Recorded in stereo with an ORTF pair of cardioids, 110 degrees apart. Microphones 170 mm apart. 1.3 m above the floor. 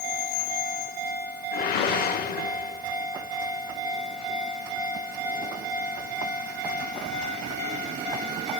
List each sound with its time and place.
1.5 s a whoosh: 65° left, 1.3 m